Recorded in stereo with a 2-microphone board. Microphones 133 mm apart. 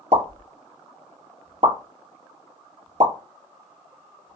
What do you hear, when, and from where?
0.1 s a pop: 55° right (ahead or behind), 1.1 m